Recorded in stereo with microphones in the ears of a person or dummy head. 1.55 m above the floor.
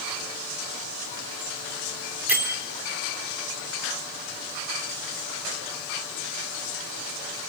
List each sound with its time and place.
2.3 s a bell: 10° right (ahead or behind), 4 m